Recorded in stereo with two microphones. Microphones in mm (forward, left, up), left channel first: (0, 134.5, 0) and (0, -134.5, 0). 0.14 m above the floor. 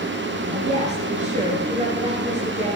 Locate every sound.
0.5 s a woman speaking: 25° right (ahead or behind), 2.5 m